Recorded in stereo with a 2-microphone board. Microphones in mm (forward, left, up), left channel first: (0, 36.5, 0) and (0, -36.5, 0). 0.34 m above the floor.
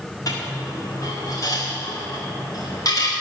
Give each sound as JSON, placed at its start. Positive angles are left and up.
{"t": 0.3, "sound": "a dropped coin", "side_deg": 50, "distance_m": 6.0}